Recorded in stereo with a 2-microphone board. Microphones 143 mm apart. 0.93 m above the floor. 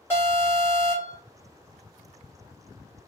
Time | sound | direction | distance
0.1 | an alarm | 15° left (ahead or behind) | 1.9 m